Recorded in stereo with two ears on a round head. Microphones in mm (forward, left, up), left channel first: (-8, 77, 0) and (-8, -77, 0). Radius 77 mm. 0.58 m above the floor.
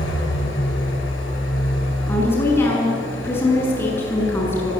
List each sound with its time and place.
0.0 s an engine running: 80° left, 8 m
2.1 s a woman speaking: 15° left (ahead or behind), 7.5 m